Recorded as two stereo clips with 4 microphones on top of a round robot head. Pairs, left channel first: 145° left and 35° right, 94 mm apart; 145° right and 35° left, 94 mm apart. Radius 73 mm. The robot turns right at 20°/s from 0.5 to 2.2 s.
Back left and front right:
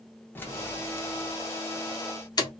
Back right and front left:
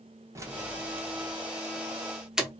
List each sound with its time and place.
0.3 s keys jangling: 85° left, 0.8 m; by 2.5 s 115° left, 0.8 m